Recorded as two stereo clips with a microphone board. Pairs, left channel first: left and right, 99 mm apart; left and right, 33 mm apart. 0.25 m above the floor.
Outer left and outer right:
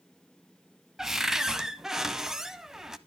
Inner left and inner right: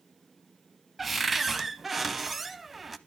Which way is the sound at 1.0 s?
5° right (ahead or behind).